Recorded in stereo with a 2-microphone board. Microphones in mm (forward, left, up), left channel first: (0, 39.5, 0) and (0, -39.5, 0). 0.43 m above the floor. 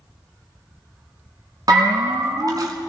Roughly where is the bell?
Right.